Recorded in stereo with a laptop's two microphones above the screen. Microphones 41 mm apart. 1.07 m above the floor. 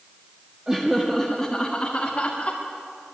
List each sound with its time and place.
0.7 s laughter: 15° right (ahead or behind), 1.7 m; by 2.6 s 45° left (ahead or behind), 2.5 m